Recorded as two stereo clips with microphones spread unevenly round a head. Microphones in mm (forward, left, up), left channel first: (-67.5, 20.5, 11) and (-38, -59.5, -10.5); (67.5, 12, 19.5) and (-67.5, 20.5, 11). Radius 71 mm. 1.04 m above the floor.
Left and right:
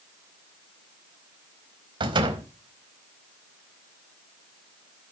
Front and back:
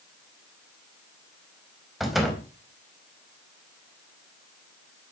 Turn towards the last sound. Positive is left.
turn(degrees=-95)